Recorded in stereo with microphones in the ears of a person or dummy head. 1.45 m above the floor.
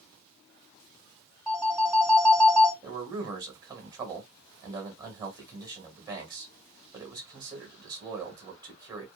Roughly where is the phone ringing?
Centre.